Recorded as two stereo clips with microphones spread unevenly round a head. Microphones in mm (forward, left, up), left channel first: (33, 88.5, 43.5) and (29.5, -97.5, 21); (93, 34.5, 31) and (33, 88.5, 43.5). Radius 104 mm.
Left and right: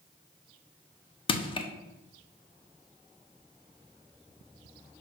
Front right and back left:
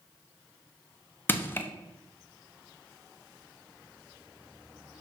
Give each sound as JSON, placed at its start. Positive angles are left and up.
{"t": 1.3, "sound": "crushing", "azimuth_deg": 25, "distance_m": 1.0}